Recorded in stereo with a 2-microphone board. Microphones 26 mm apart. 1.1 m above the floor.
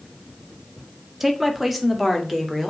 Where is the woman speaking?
5° right (ahead or behind), 1.7 m; by 2.7 s centre (ahead or behind), 3 m.